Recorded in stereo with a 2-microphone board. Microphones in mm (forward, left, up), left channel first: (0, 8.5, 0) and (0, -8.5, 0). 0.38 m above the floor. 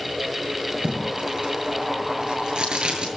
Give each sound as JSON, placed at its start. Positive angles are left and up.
{"t": 0.8, "sound": "tape being pulled", "side_deg": -65, "distance_m": 7.5}